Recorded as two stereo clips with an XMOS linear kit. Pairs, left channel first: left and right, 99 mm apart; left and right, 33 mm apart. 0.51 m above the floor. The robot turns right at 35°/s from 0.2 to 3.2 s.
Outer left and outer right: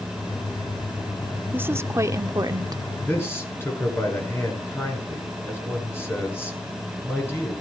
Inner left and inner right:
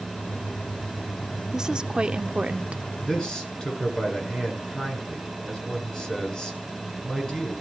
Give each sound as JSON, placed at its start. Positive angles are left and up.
{"t": 1.5, "sound": "a woman speaking", "azimuth_deg": -150, "distance_m": 0.9}
{"t": 3.1, "sound": "a man speaking", "side_deg": 20, "distance_m": 6.5}